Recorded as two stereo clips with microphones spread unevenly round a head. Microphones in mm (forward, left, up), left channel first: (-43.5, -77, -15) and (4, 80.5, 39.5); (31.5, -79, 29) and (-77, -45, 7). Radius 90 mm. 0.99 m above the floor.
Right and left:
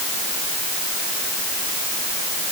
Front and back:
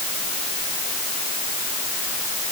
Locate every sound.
Only background noise.